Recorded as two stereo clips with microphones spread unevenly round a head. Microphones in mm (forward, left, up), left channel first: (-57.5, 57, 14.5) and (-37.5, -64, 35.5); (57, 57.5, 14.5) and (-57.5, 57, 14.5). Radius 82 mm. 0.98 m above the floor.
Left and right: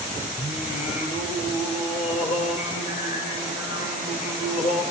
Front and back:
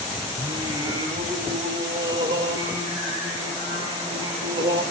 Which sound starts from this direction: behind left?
Singing, at 0.4 s.